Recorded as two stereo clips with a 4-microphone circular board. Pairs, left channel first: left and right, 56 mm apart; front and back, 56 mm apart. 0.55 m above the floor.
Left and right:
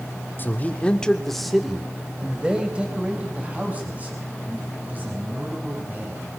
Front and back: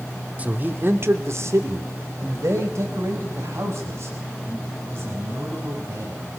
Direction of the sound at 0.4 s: 125° left.